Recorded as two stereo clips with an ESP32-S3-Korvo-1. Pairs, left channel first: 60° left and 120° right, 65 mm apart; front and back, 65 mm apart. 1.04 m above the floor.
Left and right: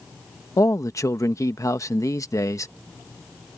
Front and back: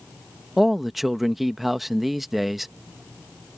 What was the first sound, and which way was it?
A man speaking, 90° left.